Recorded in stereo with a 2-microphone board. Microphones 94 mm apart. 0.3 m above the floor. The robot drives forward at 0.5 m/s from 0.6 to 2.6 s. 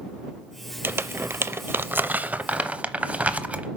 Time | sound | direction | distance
0.8 | crumpling | 20° right (ahead or behind) | 0.5 m